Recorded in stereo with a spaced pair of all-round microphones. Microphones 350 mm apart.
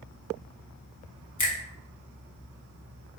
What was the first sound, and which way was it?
A finger snap, 55° left (ahead or behind).